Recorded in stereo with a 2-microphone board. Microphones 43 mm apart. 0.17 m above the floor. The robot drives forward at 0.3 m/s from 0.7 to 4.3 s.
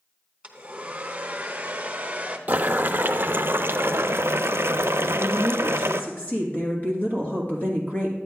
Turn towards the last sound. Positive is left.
turn(degrees=40)  # may be behind; listen again after turning